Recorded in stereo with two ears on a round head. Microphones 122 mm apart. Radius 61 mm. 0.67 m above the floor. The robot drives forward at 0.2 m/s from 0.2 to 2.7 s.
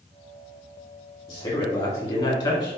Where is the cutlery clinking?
I don't hear cutlery clinking.